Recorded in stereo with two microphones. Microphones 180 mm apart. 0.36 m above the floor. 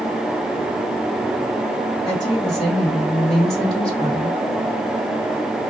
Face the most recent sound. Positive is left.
turn(degrees=40)  # may be behind; listen again after turning